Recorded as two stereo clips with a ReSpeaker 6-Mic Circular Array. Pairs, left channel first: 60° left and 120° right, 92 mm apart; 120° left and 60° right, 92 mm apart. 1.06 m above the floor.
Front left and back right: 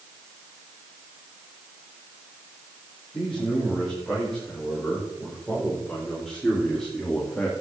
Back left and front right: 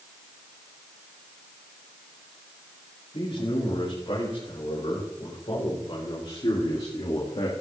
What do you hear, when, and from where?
3.1 s a man speaking: 150° left, 7.5 m; by 7.5 s 140° left, 2 m